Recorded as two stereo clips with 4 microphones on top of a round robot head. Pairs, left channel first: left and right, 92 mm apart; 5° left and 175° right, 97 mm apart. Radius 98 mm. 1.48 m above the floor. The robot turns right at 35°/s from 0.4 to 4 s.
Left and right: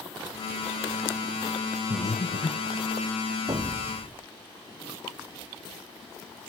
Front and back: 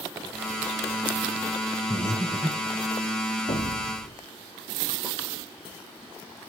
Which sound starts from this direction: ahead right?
An explosion, at 3.5 s.